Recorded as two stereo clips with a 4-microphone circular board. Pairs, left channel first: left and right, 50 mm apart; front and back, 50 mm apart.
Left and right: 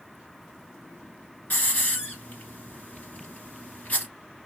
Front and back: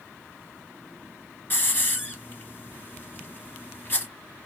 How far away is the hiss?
About 1.3 m.